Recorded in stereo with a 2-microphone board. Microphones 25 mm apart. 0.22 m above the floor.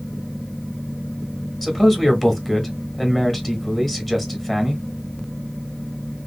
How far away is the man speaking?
About 1.2 m.